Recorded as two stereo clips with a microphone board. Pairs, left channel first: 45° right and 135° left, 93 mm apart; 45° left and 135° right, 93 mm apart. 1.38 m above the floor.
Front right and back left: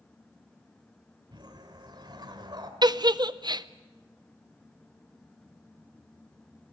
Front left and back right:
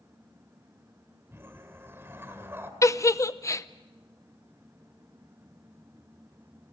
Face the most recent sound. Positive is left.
turn(degrees=100)